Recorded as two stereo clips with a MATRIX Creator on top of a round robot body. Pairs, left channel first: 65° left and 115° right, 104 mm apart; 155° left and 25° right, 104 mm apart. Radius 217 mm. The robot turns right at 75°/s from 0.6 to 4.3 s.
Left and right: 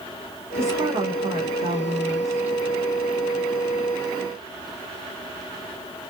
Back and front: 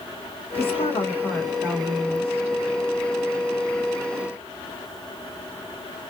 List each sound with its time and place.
0.6 s a woman speaking: straight behind, 1.0 m; by 2.6 s 30° right, 1.0 m